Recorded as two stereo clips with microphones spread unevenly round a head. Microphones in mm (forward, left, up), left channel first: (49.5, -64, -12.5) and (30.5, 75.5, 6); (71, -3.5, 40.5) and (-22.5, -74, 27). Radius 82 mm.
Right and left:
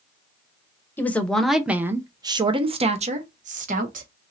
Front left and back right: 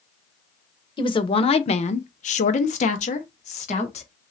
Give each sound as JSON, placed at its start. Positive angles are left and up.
{"t": 1.0, "sound": "a woman speaking", "azimuth_deg": -10, "distance_m": 1.0}